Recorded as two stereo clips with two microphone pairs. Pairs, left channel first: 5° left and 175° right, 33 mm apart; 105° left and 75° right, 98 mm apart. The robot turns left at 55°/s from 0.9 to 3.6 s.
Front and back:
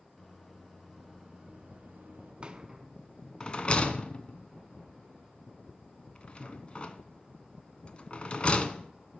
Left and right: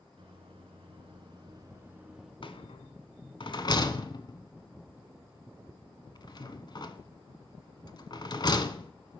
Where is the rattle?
130° left, 0.8 m; by 8.9 s 65° left, 0.8 m.